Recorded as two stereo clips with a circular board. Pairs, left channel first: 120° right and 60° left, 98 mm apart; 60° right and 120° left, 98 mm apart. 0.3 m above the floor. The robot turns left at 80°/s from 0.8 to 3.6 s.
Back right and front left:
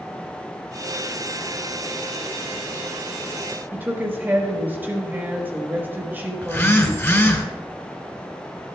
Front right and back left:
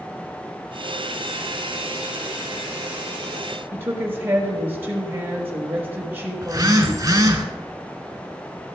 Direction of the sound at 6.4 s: 175° left.